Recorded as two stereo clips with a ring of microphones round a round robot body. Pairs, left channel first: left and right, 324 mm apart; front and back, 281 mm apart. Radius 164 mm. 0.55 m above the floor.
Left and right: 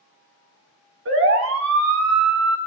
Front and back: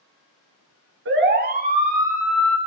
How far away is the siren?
About 3 m.